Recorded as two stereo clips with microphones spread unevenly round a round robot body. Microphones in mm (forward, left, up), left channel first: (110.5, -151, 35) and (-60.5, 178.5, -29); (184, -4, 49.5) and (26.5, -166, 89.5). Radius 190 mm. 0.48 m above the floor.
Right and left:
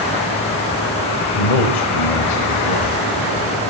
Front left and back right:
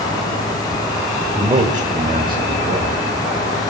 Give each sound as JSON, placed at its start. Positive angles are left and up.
{"t": 1.4, "sound": "a man speaking", "azimuth_deg": -65, "distance_m": 1.8}